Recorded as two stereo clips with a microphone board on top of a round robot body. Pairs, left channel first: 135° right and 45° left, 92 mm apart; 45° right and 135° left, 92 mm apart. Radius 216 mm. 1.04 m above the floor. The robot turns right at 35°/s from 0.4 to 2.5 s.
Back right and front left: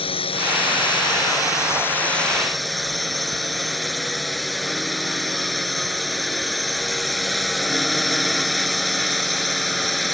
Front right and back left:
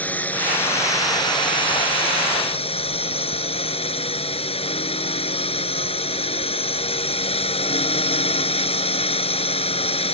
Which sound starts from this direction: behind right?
A drone, at 0.0 s.